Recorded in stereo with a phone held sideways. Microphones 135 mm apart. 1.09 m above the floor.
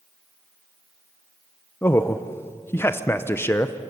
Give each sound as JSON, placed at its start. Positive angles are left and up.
{"t": 1.8, "sound": "a man speaking", "side_deg": 20, "distance_m": 0.7}